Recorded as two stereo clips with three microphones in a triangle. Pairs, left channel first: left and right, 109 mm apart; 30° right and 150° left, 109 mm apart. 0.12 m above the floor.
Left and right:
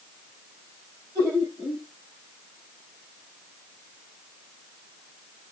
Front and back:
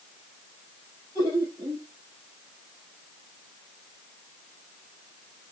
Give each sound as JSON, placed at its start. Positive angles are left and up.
{"t": 1.1, "sound": "laughter", "azimuth_deg": -155, "distance_m": 4.0}